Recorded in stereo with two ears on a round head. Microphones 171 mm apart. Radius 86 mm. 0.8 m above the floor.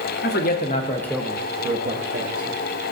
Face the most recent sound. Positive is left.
turn(degrees=-60)  # may be behind; listen again after turning